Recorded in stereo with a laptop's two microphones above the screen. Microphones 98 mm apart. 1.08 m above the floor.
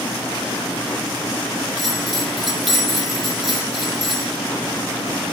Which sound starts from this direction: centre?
A bell, at 1.8 s.